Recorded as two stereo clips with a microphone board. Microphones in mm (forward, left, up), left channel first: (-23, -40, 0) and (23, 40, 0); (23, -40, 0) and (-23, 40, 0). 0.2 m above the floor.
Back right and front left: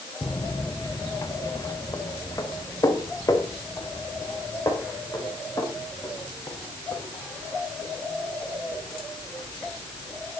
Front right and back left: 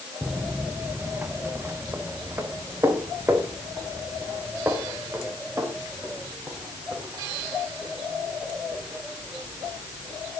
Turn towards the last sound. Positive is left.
turn(degrees=-175)